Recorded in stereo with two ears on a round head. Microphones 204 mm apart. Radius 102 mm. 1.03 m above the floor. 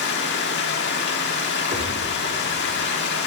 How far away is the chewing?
I don't hear chewing.